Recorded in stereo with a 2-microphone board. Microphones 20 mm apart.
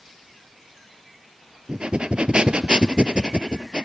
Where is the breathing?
55° right (ahead or behind), 0.5 m.